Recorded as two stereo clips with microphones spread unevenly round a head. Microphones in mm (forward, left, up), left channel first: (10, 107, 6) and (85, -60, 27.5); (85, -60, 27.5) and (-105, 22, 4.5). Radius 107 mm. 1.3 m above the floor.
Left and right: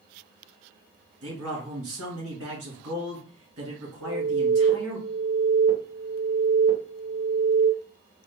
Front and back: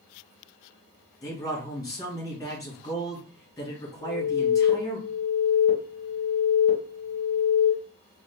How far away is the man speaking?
About 1.8 m.